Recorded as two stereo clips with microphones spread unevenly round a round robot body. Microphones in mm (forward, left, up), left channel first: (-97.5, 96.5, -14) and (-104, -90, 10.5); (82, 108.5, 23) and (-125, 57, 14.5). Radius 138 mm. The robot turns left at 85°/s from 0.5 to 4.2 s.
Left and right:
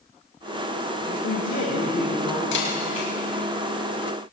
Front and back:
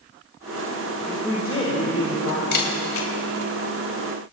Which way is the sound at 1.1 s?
110° left.